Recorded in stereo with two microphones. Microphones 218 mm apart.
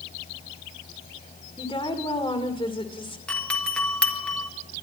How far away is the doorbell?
About 1.8 m.